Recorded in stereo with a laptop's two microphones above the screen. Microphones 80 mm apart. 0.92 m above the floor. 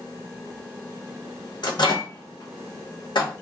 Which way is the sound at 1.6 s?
70° left (ahead or behind).